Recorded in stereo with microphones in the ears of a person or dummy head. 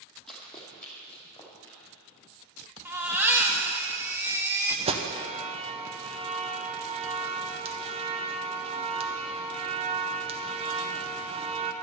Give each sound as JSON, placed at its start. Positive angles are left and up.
{"t": 0.3, "sound": "running footsteps", "side_deg": 5, "distance_m": 3.0}
{"t": 2.9, "sound": "a baby crying", "side_deg": -10, "distance_m": 1.2}
{"t": 4.9, "sound": "an alarm", "side_deg": -30, "distance_m": 0.9}